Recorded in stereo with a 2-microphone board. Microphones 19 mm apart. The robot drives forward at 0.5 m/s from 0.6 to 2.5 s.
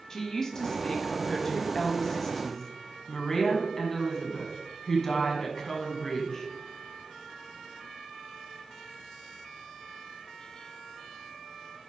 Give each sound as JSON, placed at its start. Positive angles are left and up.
{"t": 0.1, "sound": "a woman speaking", "side_deg": 30, "distance_m": 1.3}